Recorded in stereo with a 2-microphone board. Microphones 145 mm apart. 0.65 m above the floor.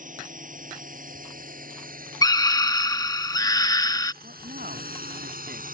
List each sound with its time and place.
0.0 s a drone: 60° right (ahead or behind); by 5.7 s 65° right (ahead or behind)
2.2 s a scream: 25° left (ahead or behind)
4.2 s a woman speaking: 80° right